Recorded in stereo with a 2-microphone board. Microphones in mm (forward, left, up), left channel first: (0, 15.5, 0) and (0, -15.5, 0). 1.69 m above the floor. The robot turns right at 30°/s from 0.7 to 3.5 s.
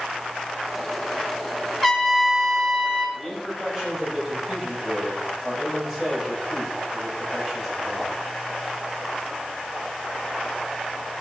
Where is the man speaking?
5° left (ahead or behind), 8 m; by 8.1 s 5° right (ahead or behind), 8 m.